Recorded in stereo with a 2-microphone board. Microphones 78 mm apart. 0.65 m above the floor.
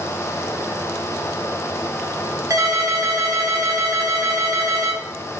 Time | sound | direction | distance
2.5 | a ringtone | 45° right (ahead or behind) | 0.8 m